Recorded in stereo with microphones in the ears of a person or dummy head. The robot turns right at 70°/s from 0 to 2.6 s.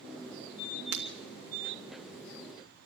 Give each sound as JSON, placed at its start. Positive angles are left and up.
{"t": 0.9, "sound": "breaking glass", "side_deg": -65, "distance_m": 3.0}